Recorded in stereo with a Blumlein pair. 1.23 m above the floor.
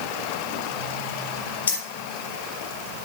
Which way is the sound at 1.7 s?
70° left.